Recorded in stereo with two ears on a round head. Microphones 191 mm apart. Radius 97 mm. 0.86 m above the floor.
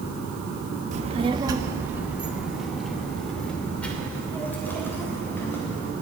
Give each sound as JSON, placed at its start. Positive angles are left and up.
{"t": 0.9, "sound": "a child speaking", "side_deg": -35, "distance_m": 0.8}